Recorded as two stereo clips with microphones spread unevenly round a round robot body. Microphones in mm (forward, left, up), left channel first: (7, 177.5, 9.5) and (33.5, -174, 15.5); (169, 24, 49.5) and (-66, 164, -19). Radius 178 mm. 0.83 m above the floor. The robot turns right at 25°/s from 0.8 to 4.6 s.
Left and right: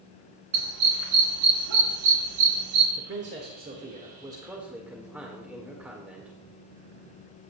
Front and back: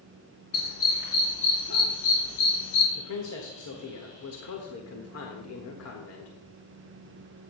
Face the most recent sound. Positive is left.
turn(degrees=0)